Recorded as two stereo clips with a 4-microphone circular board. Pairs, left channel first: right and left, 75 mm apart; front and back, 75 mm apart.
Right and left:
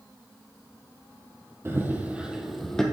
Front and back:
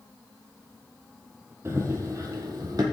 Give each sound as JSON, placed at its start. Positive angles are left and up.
{"t": 1.6, "sound": "running footsteps", "azimuth_deg": 140, "distance_m": 1.7}